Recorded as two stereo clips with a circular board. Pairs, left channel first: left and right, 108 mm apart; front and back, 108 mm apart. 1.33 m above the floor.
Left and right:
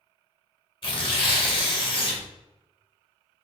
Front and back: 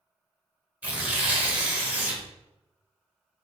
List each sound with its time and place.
0.8 s tearing paper: 110° left, 0.9 m